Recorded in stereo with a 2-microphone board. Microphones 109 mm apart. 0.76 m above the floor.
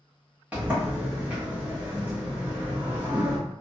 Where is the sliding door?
10° right (ahead or behind), 1.0 m.